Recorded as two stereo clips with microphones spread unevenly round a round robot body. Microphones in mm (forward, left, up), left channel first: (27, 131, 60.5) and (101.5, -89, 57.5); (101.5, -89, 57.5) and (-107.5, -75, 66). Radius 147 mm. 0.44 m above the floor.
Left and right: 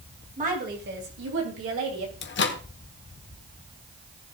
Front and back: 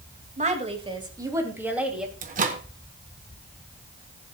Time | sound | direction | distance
0.4 | a woman speaking | 130° right | 2.5 m
2.2 | a microwave | 130° left | 1.2 m